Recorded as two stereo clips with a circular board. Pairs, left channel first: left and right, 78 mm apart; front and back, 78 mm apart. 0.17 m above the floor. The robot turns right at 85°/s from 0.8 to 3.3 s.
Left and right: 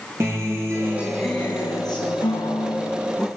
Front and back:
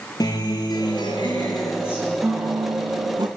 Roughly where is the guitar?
Ahead right.